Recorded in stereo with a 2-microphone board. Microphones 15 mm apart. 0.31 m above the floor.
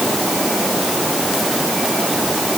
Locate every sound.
Only background noise.